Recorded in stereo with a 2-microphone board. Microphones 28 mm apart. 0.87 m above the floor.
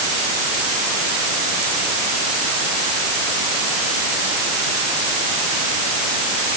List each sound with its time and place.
Only background noise.